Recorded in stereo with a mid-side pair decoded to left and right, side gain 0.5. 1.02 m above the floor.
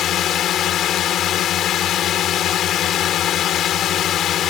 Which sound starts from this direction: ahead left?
A drone, at 0.0 s.